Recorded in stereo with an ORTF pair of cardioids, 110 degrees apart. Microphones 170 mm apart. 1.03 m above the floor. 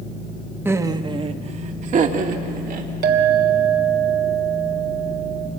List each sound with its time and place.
0.7 s laughter: 15° right, 1.3 m; by 2.9 s 60° right, 3 m
3.0 s a clink: 70° right, 3 m